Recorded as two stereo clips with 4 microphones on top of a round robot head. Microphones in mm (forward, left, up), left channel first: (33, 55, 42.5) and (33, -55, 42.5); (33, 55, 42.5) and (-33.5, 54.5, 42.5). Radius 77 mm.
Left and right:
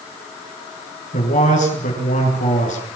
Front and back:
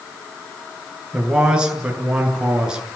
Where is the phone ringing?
No phone ringing in this recording.